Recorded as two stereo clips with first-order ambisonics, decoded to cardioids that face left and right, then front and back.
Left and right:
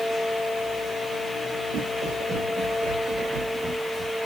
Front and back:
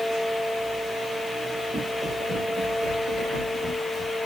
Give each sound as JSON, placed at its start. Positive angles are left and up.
{"t": 1.7, "sound": "footsteps", "azimuth_deg": -85, "distance_m": 3.0}